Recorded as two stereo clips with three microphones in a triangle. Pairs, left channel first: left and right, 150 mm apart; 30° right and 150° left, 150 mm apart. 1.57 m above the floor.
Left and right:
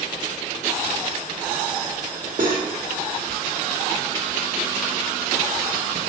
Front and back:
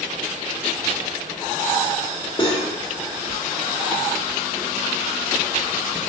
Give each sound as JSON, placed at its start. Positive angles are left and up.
{"t": 2.4, "sound": "cutlery clinking", "azimuth_deg": -80, "distance_m": 1.6}